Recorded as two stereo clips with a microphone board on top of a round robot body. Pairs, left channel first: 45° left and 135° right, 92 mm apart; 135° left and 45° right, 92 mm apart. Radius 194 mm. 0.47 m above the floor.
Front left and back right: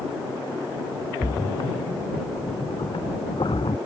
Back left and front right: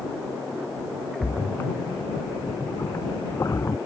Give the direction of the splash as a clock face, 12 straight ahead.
9 o'clock.